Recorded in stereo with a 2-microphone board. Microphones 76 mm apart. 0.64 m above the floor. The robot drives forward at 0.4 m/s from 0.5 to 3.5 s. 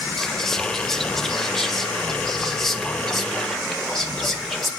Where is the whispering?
5° left (ahead or behind), 0.6 m; by 4.7 s centre (ahead or behind), 1.7 m.